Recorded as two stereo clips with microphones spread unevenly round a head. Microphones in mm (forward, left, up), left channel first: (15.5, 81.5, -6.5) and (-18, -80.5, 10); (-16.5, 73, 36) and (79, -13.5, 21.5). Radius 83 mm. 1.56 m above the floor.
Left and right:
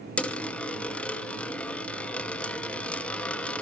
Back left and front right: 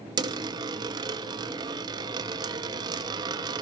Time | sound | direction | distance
0.2 | a dropped coin | 10° right | 0.9 m